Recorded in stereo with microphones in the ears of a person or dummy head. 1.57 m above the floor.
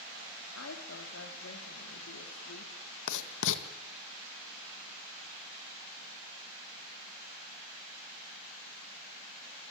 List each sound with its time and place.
0.6 s a woman speaking: 90° left, 4.5 m
3.1 s writing: 70° left (ahead or behind), 1.9 m